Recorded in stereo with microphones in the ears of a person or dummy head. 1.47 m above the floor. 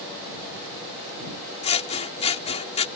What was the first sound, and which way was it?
Scissors, 30° left (ahead or behind).